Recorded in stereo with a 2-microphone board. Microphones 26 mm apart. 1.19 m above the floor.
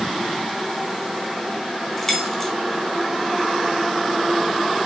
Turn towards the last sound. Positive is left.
turn(degrees=15)  # may be behind; listen again after turning